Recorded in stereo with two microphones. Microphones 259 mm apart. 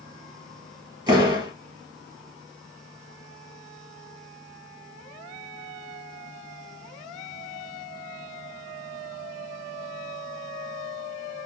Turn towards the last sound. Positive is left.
turn(degrees=-15)  # may be behind; listen again after turning